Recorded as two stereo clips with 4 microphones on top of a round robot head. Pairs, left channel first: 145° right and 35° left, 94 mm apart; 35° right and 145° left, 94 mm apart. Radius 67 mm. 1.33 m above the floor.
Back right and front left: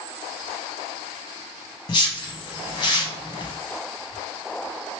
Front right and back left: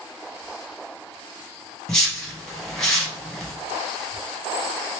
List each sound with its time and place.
1.9 s a whoosh: 120° right, 0.9 m